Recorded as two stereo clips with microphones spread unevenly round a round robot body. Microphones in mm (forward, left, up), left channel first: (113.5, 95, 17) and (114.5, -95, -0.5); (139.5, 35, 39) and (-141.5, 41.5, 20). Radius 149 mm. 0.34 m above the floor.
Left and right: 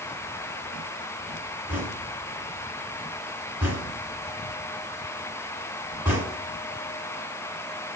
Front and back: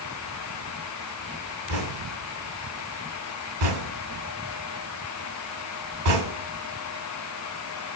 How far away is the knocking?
About 1.9 m.